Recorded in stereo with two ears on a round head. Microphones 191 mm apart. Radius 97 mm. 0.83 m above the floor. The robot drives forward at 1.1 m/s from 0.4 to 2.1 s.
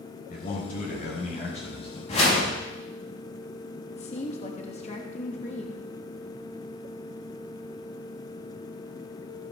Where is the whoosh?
35° left (ahead or behind), 5.5 m.